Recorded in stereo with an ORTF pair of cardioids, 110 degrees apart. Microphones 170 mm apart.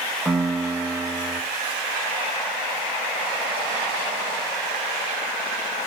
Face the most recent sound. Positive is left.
turn(degrees=5)